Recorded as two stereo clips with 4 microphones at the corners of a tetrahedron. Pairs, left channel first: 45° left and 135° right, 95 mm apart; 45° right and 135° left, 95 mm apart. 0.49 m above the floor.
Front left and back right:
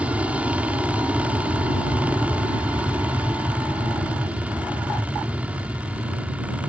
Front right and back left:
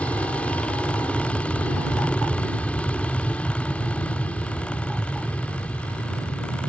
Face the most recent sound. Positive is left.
turn(degrees=-90)